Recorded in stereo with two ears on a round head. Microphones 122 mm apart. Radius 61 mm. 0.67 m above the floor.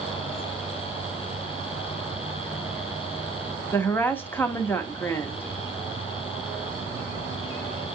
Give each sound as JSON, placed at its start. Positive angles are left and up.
{"t": 3.7, "sound": "a woman speaking", "side_deg": 15, "distance_m": 0.8}